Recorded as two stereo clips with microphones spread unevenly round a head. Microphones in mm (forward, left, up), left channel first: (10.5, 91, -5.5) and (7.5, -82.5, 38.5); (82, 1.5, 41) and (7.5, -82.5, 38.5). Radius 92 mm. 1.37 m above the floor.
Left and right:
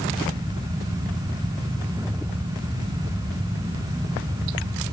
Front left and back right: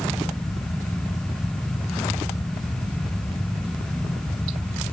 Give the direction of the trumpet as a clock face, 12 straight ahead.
No trumpet in this recording.